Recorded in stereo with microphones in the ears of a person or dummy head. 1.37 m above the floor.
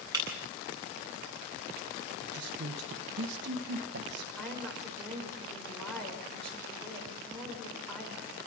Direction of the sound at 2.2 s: 55° right (ahead or behind).